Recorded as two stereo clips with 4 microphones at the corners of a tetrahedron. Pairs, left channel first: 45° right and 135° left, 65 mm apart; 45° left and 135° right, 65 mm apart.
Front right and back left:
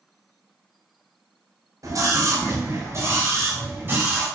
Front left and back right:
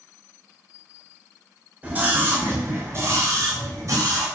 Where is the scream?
160° left, 4 m; by 4.2 s 165° right, 5 m.